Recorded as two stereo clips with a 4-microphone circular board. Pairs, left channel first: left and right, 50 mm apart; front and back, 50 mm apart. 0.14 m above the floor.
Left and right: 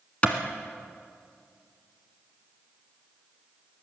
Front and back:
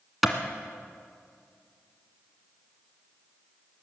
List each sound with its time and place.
0.2 s a clap: 95° left, 1.4 m